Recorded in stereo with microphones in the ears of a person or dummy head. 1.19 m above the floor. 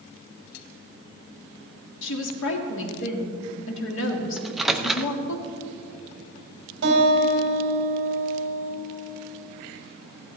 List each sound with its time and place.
2.0 s a woman speaking: 75° left (ahead or behind), 1.9 m
4.4 s a microwave: 5° right (ahead or behind), 0.6 m
6.8 s a guitar: 60° right (ahead or behind), 3.5 m